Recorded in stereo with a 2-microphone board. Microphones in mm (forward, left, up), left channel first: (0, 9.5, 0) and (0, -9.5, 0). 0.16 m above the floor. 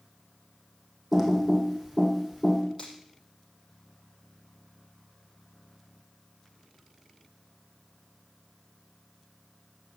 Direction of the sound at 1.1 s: 10° right (ahead or behind).